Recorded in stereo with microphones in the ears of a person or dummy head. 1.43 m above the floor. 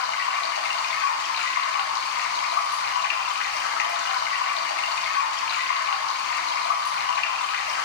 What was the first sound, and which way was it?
Running water, 65° left (ahead or behind).